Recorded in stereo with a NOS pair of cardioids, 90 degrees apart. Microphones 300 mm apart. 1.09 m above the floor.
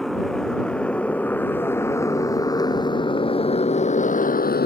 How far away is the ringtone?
No ringtone in this recording.